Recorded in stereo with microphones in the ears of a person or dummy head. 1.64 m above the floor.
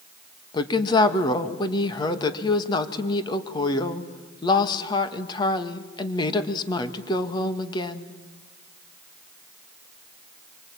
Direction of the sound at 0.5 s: 30° left (ahead or behind).